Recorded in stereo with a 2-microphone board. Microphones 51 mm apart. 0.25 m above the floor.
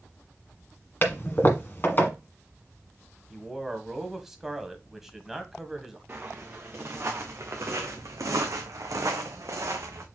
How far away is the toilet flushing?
About 1.4 m.